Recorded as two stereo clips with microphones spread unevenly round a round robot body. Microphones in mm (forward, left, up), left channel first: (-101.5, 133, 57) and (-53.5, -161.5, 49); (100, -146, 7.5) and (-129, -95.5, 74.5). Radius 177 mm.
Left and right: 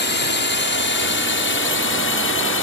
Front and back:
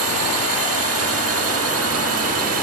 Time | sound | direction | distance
0.0 | a drone | 140° left | ?